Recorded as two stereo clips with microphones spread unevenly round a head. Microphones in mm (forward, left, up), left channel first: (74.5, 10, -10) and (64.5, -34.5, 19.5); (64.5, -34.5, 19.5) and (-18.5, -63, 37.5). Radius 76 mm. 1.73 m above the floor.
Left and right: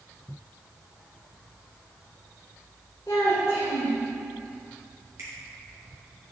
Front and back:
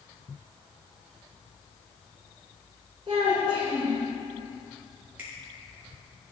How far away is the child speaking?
About 1.5 m.